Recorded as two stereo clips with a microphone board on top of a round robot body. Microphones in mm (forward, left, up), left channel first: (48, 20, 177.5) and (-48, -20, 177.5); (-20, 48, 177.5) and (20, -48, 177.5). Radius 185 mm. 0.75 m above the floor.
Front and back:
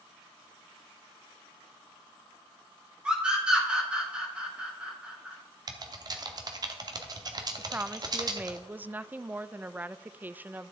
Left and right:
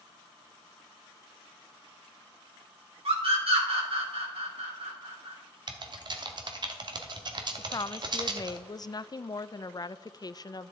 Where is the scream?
80° right, 3.5 m.